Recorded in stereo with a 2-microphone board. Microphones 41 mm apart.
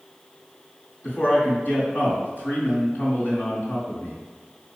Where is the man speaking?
45° left (ahead or behind), 2.5 m.